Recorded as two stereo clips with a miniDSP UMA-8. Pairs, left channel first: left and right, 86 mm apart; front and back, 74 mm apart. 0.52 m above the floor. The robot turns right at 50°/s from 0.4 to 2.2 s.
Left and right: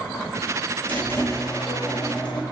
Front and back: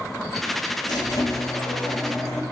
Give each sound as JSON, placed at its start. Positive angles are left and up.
{"t": 0.9, "sound": "a squeak", "azimuth_deg": 15, "distance_m": 1.1}